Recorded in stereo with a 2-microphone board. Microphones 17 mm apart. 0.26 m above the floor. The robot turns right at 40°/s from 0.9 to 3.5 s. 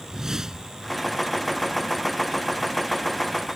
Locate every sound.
0.1 s a whoosh: 30° right (ahead or behind)